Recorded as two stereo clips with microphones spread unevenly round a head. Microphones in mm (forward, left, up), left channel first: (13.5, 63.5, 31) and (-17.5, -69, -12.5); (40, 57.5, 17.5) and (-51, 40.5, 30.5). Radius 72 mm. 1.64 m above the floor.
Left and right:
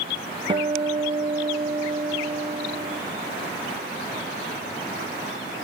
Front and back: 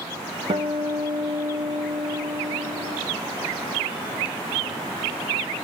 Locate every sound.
0.5 s a guitar: 170° right, 1.1 m